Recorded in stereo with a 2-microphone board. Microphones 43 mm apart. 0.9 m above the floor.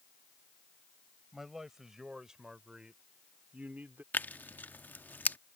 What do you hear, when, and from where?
1.3 s a man speaking: 5° right (ahead or behind); by 4.0 s 50° right (ahead or behind)
4.1 s tearing paper: 50° left (ahead or behind)